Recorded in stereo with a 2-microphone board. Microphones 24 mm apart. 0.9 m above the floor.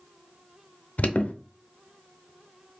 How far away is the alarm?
About 0.6 m.